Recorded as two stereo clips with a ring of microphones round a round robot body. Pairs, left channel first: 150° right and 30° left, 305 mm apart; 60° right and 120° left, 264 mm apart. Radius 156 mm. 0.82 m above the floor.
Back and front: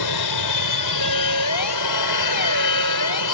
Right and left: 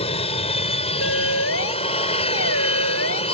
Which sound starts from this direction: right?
A siren, at 1.0 s.